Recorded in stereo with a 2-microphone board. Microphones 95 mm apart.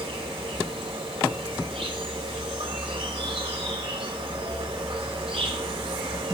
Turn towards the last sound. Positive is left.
turn(degrees=-70)  # may be behind; listen again after turning